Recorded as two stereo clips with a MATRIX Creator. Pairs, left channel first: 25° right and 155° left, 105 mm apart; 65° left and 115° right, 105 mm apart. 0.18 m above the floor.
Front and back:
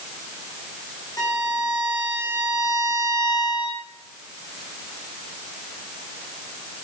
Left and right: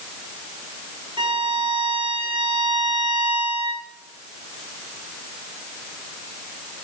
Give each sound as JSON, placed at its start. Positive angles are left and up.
{"t": 1.2, "sound": "a violin", "azimuth_deg": -75, "distance_m": 4.0}